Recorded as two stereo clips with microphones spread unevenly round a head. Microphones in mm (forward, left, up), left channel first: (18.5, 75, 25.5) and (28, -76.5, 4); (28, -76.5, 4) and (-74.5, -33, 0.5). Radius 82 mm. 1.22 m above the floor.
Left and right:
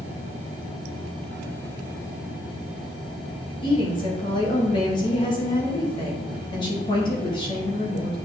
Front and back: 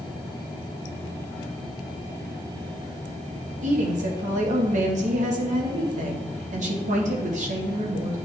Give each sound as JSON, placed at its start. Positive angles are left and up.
{"t": 3.6, "sound": "a woman speaking", "azimuth_deg": 160, "distance_m": 1.3}